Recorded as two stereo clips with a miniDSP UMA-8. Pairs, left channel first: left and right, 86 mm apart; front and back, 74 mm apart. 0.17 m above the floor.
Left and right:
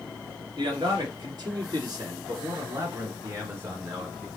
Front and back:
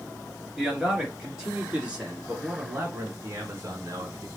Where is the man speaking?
95° right, 2.5 m; by 4.3 s 160° right, 1.6 m.